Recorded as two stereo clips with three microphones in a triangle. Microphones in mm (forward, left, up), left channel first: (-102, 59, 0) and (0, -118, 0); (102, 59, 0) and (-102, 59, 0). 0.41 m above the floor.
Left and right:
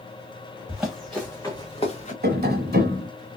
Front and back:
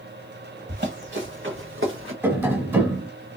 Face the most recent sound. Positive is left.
turn(degrees=-100)